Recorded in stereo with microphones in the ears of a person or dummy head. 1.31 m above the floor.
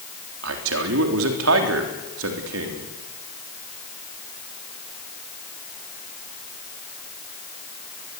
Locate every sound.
0.4 s a man speaking: 70° right (ahead or behind), 3.5 m